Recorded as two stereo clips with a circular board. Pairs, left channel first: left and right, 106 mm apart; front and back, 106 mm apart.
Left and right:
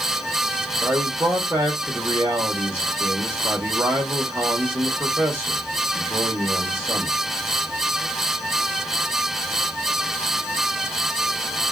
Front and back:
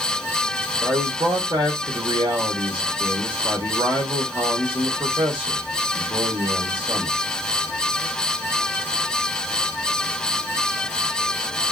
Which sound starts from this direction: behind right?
A man speaking, at 0.8 s.